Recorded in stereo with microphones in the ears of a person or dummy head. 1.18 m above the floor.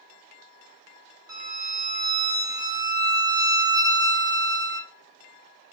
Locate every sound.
1.3 s a violin: 15° right (ahead or behind), 0.6 m